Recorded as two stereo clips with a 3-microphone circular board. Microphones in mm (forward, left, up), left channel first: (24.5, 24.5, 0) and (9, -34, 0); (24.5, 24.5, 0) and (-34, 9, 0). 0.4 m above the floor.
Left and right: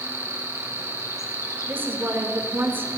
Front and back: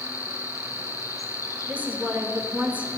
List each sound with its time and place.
0.0 s an insect: 40° left, 1.3 m
1.7 s a woman speaking: 120° right, 0.9 m